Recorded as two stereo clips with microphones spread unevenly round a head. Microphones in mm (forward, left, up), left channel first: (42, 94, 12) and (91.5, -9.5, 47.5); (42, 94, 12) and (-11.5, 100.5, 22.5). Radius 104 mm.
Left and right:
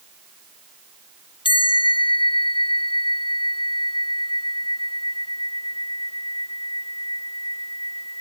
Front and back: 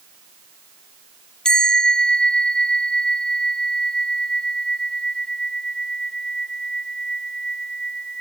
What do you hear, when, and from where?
1.4 s a bell: 70° left